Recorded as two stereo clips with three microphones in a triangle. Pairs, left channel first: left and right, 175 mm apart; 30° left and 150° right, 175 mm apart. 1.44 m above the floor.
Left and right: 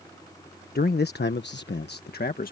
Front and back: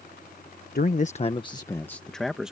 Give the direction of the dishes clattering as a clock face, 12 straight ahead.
No dishes clattering in this recording.